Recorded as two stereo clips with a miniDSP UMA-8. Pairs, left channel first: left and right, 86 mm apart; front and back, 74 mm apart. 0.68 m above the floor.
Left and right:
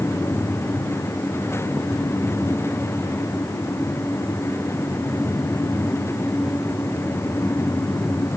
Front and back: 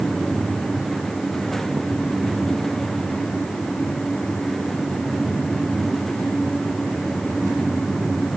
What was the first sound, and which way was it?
Only background noise.